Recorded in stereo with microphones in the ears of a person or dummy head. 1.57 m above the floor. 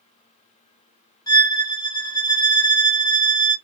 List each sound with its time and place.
1.3 s a violin: 15° left (ahead or behind), 0.6 m